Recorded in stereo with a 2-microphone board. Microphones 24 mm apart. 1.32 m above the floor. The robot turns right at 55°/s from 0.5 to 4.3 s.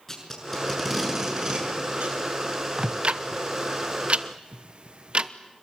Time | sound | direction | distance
0.1 | tape being pulled | 10° left (ahead or behind) | 7 m
2.8 | ticking | 40° right (ahead or behind) | 1.0 m